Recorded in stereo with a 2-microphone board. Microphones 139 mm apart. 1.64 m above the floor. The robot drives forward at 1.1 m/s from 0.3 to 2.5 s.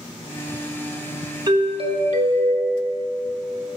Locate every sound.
1.5 s a doorbell: 30° right (ahead or behind), 1.0 m; by 3.0 s 55° right (ahead or behind), 0.6 m